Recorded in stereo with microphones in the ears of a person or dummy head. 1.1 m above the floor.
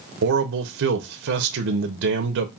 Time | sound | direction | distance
0.2 | a man speaking | 65° right (ahead or behind) | 0.6 m